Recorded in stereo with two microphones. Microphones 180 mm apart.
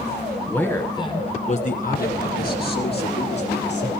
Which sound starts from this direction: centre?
A man speaking, at 0.5 s.